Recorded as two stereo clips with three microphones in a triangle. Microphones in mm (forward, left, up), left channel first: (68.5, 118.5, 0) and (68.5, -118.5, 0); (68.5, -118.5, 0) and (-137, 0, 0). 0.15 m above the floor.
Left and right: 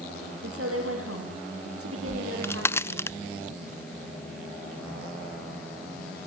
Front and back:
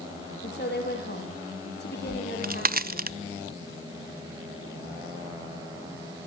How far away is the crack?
About 0.6 m.